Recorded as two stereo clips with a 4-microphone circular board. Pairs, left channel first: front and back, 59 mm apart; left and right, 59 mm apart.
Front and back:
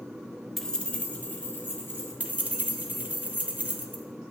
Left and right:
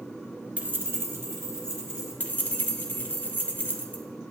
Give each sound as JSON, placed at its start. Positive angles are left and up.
{"t": 0.6, "sound": "keys jangling", "azimuth_deg": -85, "distance_m": 0.5}
{"t": 2.2, "sound": "keys jangling", "azimuth_deg": 130, "distance_m": 0.6}